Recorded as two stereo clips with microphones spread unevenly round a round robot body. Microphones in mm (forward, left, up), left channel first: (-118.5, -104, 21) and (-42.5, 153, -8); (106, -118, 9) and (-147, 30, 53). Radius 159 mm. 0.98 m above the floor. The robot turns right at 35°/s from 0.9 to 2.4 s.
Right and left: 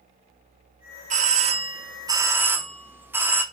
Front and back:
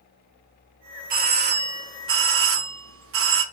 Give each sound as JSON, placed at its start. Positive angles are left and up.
{"t": 1.1, "sound": "a doorbell", "azimuth_deg": 95, "distance_m": 0.6}